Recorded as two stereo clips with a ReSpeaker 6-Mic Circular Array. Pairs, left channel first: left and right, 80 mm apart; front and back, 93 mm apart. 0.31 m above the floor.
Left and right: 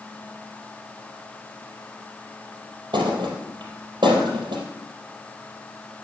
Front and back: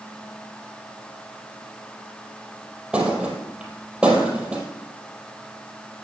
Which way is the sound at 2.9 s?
100° right.